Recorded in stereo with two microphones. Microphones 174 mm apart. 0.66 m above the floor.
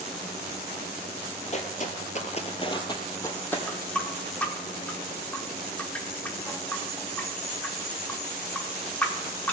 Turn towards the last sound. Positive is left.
turn(degrees=10)  # may be behind; listen again after turning